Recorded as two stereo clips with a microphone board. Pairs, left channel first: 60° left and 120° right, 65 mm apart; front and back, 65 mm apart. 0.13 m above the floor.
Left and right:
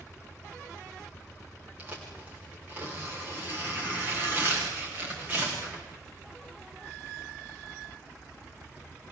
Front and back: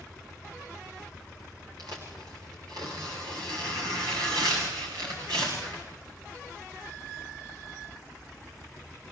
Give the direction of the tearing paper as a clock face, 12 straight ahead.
6 o'clock.